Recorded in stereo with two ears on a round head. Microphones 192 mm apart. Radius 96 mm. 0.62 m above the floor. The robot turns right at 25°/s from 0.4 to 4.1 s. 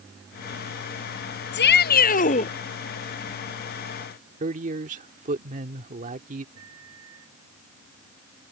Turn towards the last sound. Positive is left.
turn(degrees=-80)